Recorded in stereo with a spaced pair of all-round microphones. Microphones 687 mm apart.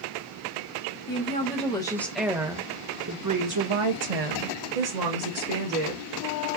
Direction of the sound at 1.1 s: 15° left (ahead or behind).